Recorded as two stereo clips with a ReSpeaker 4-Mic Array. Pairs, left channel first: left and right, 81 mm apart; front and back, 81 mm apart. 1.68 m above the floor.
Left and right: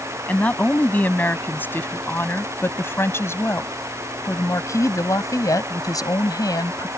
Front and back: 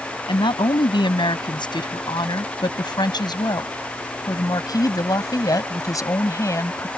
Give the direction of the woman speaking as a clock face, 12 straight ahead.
11 o'clock.